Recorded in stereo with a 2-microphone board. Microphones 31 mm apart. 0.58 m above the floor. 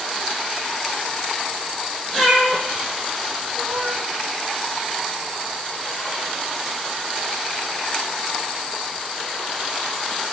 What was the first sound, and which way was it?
A cat meowing, 20° left (ahead or behind).